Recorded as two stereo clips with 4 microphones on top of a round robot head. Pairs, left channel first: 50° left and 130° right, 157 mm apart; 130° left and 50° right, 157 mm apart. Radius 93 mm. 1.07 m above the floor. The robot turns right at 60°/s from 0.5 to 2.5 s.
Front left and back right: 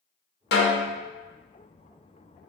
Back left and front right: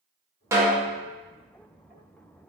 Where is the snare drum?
25° left, 0.5 m; by 1.0 s 50° left, 0.5 m.